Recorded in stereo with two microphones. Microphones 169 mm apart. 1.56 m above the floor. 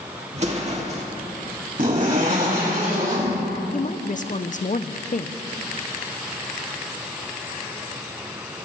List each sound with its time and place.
0.3 s an explosion: 40° right (ahead or behind), 2.0 m
1.8 s a zipper: 55° right (ahead or behind), 5.5 m
3.7 s a woman speaking: 50° left (ahead or behind), 0.5 m